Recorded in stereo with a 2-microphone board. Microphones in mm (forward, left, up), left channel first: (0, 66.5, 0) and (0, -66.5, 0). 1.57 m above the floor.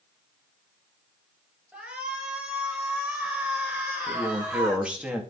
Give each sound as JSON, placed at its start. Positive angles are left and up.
{"t": 1.7, "sound": "a shout", "side_deg": -10, "distance_m": 7.0}
{"t": 4.1, "sound": "a man speaking", "side_deg": -10, "distance_m": 3.0}